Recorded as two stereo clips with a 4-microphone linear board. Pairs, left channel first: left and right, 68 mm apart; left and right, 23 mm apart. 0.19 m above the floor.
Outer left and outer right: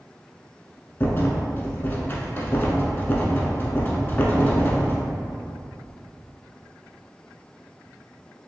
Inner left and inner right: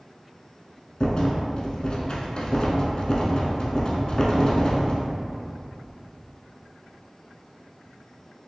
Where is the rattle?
35° left (ahead or behind), 0.5 m.